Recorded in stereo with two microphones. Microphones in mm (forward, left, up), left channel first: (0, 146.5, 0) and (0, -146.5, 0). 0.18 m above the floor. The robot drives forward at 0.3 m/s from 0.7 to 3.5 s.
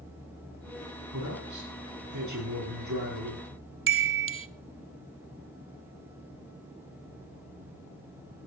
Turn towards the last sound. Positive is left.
turn(degrees=-45)  # may be behind; listen again after turning